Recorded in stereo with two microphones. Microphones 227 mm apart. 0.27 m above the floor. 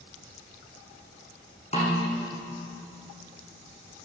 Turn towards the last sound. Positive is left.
turn(degrees=25)  # may be behind; listen again after turning